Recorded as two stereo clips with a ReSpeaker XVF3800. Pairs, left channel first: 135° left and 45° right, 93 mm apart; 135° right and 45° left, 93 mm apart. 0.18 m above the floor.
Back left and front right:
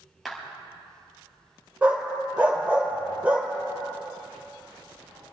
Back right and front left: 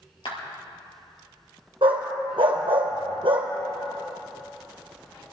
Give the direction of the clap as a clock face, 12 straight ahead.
4 o'clock.